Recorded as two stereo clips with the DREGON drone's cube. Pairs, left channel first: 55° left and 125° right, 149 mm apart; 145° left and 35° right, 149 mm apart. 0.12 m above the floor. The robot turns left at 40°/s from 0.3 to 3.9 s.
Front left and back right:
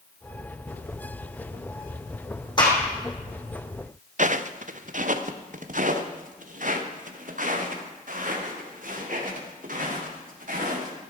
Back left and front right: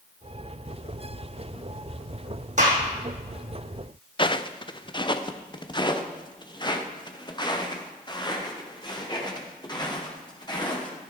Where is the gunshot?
Straight ahead, 4 m; by 2.8 s 10° right, 4 m.